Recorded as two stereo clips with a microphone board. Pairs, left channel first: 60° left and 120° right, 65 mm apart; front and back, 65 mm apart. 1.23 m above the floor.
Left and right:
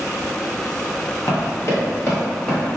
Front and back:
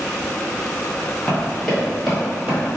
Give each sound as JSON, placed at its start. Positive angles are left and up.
{"t": 1.3, "sound": "running footsteps", "azimuth_deg": 60, "distance_m": 1.7}